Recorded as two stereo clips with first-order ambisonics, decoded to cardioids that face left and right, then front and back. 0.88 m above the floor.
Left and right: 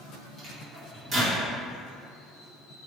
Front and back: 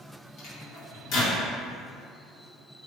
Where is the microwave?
35° right, 1.0 m.